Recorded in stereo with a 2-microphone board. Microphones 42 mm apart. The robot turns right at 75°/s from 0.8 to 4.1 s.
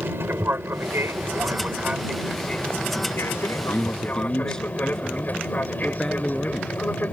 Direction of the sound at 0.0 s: 65° right (ahead or behind).